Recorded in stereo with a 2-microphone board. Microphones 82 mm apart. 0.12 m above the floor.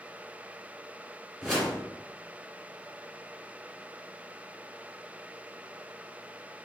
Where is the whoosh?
5° right (ahead or behind), 1.7 m.